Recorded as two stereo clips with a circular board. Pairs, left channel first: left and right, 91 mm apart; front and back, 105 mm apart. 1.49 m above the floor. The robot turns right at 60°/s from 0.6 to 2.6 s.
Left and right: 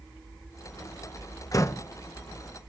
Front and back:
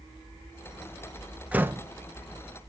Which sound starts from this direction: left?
A door slam, at 1.5 s.